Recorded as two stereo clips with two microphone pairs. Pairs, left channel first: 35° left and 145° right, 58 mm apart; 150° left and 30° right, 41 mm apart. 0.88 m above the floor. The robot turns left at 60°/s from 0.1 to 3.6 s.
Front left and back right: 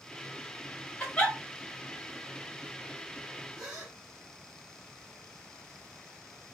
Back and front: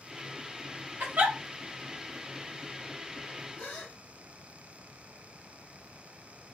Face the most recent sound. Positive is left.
turn(degrees=135)